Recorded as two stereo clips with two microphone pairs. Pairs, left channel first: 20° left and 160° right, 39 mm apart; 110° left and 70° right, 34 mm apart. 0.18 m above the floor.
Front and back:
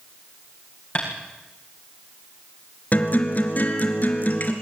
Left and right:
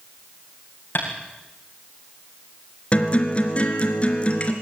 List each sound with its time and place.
0.9 s tapping: 80° left, 8.5 m
2.9 s a guitar: 60° left, 2.5 m